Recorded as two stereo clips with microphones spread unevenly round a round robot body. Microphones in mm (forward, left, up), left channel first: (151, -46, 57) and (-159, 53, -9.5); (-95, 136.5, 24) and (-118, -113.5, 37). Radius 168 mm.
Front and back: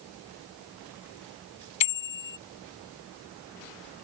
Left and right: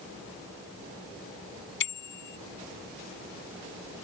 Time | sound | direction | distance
1.8 | a bicycle bell | 25° left | ?